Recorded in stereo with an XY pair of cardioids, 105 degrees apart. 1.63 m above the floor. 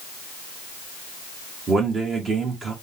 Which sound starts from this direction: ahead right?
A man speaking, at 1.7 s.